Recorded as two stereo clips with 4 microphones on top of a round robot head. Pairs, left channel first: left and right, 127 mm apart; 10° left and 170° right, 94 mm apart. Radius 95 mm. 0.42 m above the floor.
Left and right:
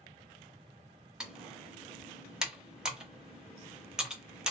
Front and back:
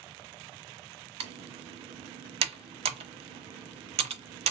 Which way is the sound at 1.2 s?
175° right.